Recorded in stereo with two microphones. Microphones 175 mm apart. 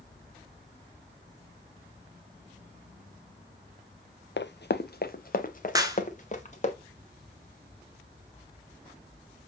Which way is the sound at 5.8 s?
20° right (ahead or behind).